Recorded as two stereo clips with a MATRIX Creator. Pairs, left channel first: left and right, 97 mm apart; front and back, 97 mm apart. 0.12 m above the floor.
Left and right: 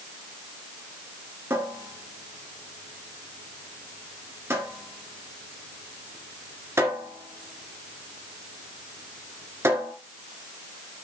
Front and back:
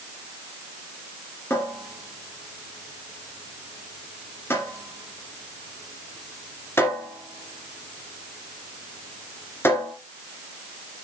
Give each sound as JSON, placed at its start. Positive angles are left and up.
{"t": 1.5, "sound": "a cupboard door", "azimuth_deg": -50, "distance_m": 2.0}